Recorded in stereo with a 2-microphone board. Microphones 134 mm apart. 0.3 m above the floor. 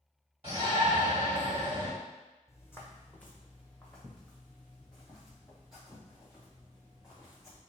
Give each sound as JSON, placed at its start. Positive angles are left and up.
{"t": 0.4, "sound": "a shout", "side_deg": -50, "distance_m": 1.4}
{"t": 2.5, "sound": "footsteps", "side_deg": 20, "distance_m": 0.8}